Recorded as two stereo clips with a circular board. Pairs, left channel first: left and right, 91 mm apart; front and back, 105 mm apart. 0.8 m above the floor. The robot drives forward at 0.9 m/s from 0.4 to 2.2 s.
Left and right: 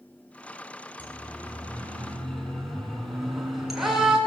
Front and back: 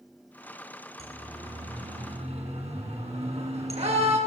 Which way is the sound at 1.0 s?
160° left.